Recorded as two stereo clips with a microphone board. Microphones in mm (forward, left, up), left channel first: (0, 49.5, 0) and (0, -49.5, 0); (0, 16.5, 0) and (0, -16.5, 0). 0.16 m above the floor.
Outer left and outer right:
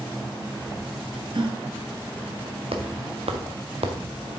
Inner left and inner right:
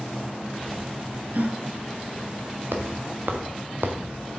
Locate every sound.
1.3 s a gasp: 60° right (ahead or behind), 0.9 m
2.7 s footsteps: 85° right, 2 m